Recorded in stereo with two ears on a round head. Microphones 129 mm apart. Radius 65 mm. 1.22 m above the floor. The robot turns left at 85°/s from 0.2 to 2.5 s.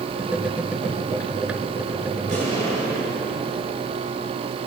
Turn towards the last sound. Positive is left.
turn(degrees=-40)  # may be behind; listen again after turning